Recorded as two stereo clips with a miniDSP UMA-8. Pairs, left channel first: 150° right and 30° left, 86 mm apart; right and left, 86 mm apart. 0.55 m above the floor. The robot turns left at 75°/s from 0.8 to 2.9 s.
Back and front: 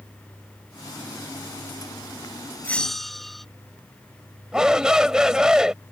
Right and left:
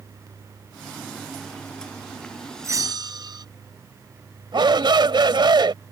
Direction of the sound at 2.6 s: 145° left.